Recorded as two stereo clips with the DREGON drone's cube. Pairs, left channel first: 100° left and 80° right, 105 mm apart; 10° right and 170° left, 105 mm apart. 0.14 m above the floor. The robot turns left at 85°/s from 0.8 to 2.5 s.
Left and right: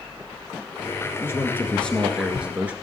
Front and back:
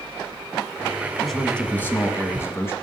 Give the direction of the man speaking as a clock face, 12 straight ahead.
9 o'clock.